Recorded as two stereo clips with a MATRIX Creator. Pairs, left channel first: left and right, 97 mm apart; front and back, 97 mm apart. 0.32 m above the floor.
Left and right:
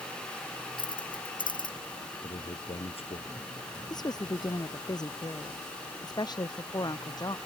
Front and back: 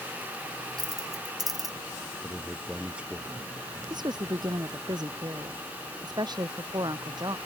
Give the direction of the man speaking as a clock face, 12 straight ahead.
9 o'clock.